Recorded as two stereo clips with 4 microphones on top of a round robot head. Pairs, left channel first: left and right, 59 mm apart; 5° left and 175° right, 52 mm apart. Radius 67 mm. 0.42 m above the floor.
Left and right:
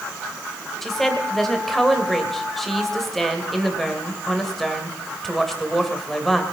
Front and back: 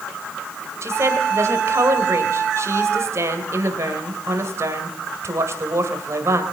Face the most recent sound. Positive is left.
turn(degrees=175)